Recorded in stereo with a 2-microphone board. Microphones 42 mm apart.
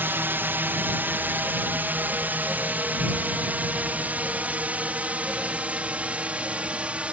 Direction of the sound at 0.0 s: 55° right (ahead or behind).